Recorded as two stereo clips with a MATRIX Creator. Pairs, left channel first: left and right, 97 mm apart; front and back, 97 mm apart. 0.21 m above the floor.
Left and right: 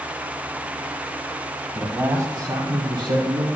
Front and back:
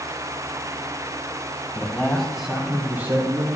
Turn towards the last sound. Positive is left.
turn(degrees=-120)